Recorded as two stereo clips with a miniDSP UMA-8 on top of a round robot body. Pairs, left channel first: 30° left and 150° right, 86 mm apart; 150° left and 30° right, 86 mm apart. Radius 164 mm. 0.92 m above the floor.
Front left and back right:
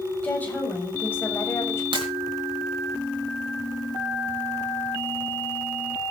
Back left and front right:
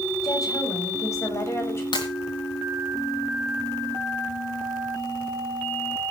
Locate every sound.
0.2 s a woman speaking: 105° left, 6.5 m; by 1.8 s 90° left, 6.5 m
1.9 s breaking glass: 175° right, 4 m